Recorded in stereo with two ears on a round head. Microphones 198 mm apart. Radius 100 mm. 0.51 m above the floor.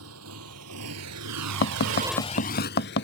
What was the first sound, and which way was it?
A motorcycle, 65° right (ahead or behind).